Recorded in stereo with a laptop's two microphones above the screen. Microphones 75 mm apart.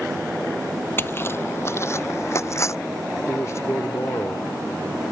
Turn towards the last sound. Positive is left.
turn(degrees=45)  # may be behind; listen again after turning